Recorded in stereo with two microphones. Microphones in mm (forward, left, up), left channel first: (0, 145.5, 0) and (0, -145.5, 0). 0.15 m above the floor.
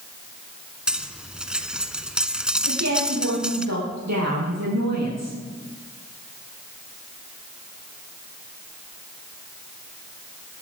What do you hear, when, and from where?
0.9 s cutlery clinking: 5° right (ahead or behind), 0.9 m
2.7 s a woman speaking: 65° right (ahead or behind), 5 m